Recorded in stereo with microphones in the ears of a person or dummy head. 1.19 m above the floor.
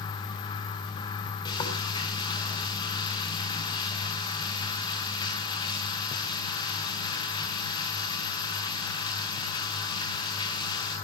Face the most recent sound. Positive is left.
turn(degrees=30)  # may be behind; listen again after turning